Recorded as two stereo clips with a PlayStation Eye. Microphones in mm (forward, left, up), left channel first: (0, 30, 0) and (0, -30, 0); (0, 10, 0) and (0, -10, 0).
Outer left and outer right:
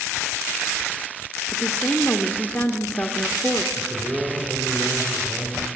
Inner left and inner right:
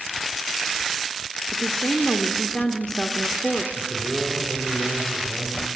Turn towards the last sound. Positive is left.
turn(degrees=-30)  # may be behind; listen again after turning